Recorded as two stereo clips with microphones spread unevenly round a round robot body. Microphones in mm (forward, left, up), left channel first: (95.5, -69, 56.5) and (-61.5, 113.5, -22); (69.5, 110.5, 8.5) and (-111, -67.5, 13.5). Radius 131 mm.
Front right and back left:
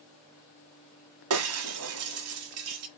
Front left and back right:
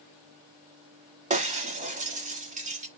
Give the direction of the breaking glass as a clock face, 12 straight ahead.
7 o'clock.